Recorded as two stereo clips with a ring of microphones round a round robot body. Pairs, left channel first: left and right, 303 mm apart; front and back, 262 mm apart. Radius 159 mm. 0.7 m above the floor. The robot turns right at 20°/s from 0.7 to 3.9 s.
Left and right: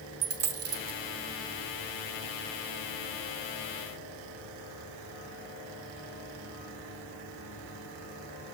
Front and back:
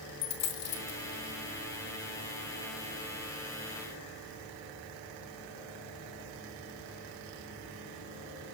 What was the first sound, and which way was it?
A dropped coin, 45° right.